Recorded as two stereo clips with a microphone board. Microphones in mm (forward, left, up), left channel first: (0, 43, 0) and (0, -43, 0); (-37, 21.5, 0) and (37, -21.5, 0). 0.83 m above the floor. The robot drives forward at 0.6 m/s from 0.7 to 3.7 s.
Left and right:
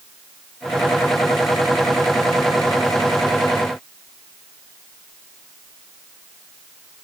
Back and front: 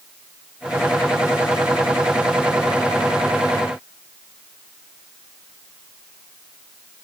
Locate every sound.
Only background noise.